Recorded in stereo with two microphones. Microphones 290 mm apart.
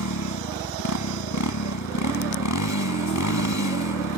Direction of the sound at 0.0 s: 85° left.